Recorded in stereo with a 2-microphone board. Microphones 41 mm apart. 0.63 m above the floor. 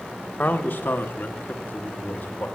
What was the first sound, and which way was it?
A man speaking, 45° left (ahead or behind).